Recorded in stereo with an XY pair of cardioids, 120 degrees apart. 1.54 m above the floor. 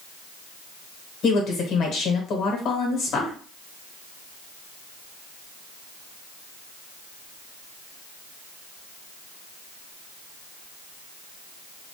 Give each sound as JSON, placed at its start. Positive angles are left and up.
{"t": 1.2, "sound": "a woman speaking", "azimuth_deg": 65, "distance_m": 1.2}